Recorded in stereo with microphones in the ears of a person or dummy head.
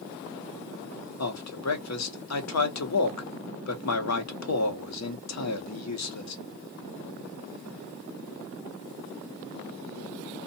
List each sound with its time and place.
1.2 s a man speaking: 80° left, 0.9 m